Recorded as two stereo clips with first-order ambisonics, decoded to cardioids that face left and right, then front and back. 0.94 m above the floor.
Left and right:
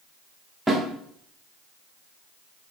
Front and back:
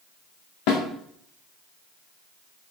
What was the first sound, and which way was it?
A snare drum, 5° right.